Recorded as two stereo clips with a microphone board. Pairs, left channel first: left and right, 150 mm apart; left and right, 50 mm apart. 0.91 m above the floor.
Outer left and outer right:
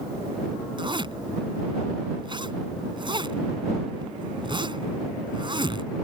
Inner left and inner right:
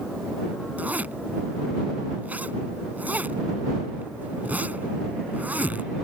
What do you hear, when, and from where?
0.8 s a zipper: 35° right (ahead or behind)